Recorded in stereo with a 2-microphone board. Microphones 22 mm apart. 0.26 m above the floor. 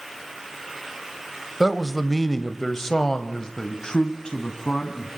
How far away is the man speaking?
About 0.9 m.